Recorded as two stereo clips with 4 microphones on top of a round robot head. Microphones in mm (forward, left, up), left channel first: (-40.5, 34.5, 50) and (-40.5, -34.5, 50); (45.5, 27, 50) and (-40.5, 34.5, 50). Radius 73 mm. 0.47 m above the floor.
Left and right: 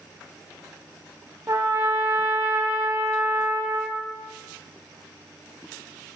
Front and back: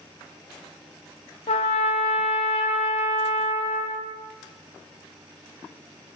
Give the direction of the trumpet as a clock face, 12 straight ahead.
1 o'clock.